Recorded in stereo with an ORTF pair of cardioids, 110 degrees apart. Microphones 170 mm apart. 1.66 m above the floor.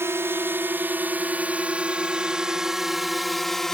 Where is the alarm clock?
I don't hear an alarm clock.